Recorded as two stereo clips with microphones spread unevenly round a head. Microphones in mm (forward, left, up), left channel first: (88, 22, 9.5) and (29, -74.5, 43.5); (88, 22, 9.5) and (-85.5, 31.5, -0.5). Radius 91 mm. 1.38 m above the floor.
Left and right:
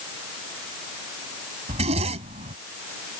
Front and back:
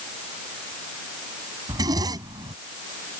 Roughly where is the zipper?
Right.